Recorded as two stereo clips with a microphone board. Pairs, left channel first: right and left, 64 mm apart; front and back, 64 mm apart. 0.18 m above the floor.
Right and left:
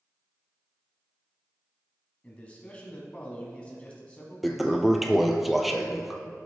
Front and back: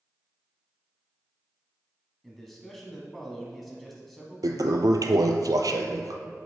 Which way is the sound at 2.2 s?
85° right.